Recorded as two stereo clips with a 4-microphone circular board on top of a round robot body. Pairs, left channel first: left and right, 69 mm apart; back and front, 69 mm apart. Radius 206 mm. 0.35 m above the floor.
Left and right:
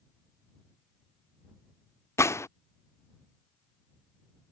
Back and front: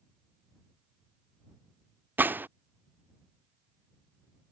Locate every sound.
2.2 s a gunshot: 55° left